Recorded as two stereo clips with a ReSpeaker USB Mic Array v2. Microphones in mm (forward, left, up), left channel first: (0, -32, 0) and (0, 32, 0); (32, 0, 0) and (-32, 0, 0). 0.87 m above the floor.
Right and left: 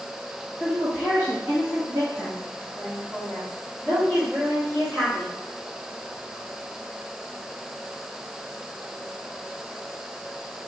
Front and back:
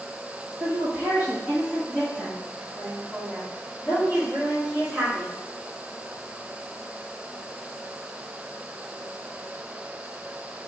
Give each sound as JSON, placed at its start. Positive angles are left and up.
{"t": 0.6, "sound": "a woman speaking", "azimuth_deg": 150, "distance_m": 0.9}